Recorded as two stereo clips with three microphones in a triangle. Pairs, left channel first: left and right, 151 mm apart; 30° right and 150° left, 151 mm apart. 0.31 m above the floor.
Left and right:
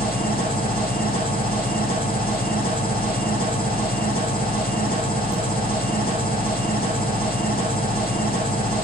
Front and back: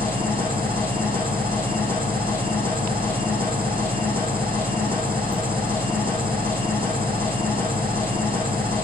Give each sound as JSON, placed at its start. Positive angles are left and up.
{"t": 0.0, "sound": "an engine running", "azimuth_deg": 100, "distance_m": 7.0}